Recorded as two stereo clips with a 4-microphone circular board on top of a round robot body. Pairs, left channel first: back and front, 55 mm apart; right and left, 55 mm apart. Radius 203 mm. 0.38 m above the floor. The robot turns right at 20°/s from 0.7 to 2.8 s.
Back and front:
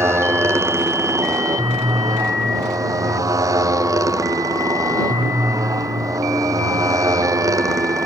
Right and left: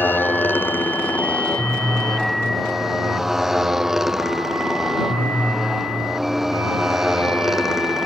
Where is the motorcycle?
35° right; by 8.1 s 5° left.